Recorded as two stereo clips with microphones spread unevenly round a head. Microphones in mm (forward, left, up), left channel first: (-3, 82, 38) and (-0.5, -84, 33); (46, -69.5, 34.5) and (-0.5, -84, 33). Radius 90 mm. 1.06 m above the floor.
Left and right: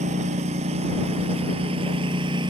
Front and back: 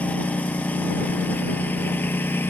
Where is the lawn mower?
40° right; by 2.5 s 25° right.